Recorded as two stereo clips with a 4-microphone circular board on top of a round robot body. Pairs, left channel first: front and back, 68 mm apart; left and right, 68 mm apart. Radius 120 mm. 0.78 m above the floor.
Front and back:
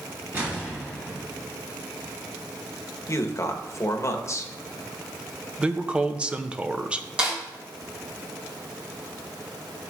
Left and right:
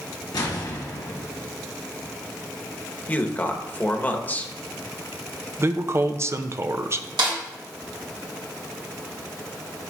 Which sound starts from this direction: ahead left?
A man speaking, at 3.1 s.